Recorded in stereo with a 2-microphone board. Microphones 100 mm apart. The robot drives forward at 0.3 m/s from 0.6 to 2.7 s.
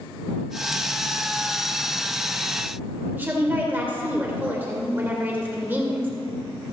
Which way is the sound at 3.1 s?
20° right (ahead or behind).